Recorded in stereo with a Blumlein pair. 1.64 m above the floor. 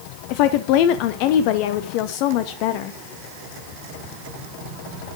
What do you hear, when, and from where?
0.3 s a woman speaking: 45° left, 0.5 m